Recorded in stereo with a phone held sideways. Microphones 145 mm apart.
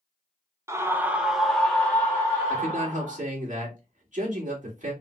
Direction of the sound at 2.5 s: 60° right (ahead or behind).